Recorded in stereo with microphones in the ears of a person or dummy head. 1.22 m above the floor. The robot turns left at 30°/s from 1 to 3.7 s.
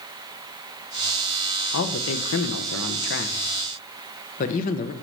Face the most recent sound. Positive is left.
turn(degrees=45)